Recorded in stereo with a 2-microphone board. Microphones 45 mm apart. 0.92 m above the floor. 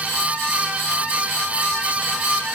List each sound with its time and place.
Only background noise.